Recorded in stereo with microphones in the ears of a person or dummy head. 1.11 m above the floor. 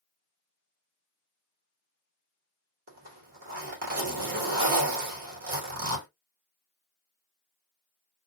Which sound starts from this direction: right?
A zipper, at 2.9 s.